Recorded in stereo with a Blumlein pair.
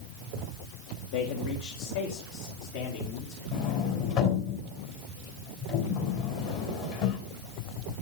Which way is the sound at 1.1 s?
50° left.